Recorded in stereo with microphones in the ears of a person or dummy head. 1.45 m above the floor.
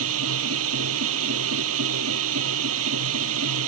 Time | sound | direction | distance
0.0 | a machine running | 85° right | ?